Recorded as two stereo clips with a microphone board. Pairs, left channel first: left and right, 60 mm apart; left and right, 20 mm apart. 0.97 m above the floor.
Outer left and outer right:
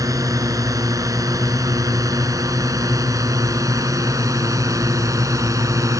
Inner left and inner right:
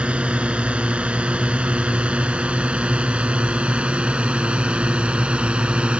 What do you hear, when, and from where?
0.0 s a drone: 85° right; by 6.0 s 75° right (ahead or behind)